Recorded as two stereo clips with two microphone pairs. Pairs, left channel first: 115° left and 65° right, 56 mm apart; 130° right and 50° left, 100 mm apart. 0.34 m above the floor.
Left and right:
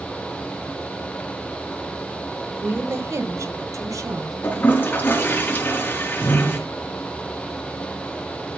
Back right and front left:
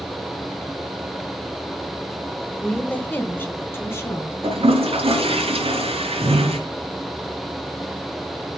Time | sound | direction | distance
2.6 | a woman speaking | 55° right | 1.3 m
4.4 | a toilet flushing | 55° left | 4 m